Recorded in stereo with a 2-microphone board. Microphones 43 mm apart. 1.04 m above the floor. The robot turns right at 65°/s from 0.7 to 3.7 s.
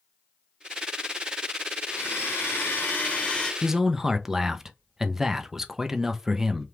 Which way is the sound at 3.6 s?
5° right (ahead or behind).